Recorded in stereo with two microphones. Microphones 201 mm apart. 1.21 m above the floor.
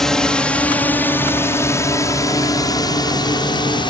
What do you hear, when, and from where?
0.0 s a drone: centre (ahead or behind); by 3.9 s 20° left (ahead or behind)